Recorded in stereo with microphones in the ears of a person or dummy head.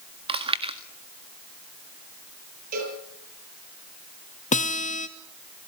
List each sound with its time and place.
0.3 s chewing: 30° right (ahead or behind), 1.6 m
2.7 s a cowbell: 55° right (ahead or behind), 8.5 m
4.5 s a guitar: 40° left (ahead or behind), 1.2 m